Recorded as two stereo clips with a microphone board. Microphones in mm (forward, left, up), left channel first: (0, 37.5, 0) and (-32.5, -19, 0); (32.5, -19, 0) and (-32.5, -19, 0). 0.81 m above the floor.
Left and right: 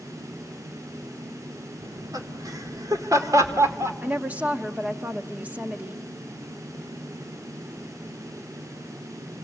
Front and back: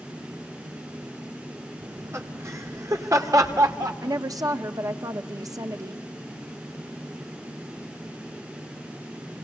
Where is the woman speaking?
175° left, 1.2 m.